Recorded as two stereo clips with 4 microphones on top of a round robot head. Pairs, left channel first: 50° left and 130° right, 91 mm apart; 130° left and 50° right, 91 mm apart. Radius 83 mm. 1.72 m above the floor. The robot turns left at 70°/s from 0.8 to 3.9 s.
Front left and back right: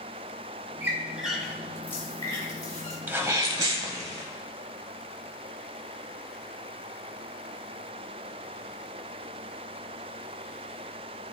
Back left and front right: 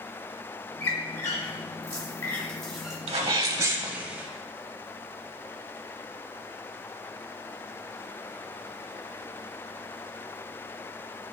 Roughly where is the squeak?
Behind.